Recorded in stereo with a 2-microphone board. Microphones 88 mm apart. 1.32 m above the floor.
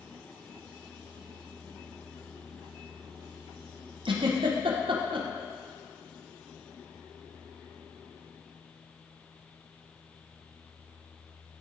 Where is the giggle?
65° right (ahead or behind), 0.7 m.